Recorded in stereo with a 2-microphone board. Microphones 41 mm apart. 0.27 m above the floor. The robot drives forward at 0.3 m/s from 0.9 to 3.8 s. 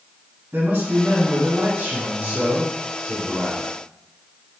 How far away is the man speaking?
About 2.5 m.